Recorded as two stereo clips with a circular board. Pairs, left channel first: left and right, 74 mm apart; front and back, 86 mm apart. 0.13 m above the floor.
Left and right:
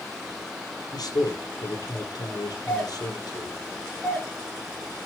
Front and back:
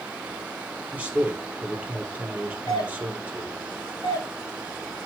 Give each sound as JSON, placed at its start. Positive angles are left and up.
{"t": 0.9, "sound": "a man speaking", "azimuth_deg": 105, "distance_m": 3.0}
{"t": 2.7, "sound": "a doorbell", "azimuth_deg": 25, "distance_m": 3.0}